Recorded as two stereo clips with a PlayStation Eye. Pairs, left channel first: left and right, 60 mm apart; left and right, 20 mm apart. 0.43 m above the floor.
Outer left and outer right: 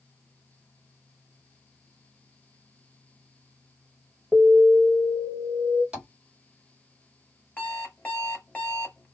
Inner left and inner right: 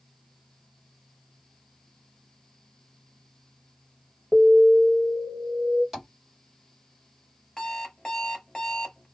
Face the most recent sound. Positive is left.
turn(degrees=25)  # may be behind; listen again after turning